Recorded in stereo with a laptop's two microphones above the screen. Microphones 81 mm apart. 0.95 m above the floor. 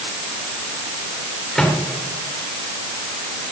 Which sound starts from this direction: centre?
A microwave, at 1.6 s.